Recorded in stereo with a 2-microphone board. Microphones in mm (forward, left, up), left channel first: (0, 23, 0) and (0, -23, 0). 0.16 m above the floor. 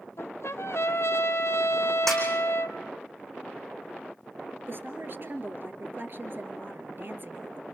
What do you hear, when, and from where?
0.2 s a trumpet: 80° left, 1.0 m
2.1 s a snare drum: 5° left (ahead or behind), 4.5 m
4.7 s a woman speaking: 50° right (ahead or behind), 2.5 m